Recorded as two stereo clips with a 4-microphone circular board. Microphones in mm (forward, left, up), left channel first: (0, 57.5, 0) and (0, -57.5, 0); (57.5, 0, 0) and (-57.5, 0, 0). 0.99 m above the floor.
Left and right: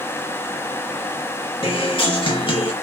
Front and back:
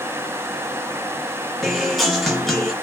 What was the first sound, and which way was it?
A guitar, 90° left.